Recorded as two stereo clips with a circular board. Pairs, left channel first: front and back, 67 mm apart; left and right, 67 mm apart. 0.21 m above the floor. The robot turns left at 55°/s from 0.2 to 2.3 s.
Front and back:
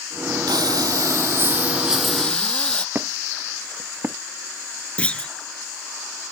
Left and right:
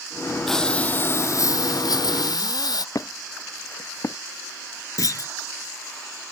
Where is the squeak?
120° left.